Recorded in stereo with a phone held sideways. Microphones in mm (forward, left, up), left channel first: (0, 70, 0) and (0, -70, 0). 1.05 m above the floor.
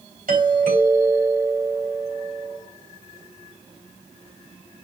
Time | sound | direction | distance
0.3 | a doorbell | 75° right (ahead or behind) | 3 m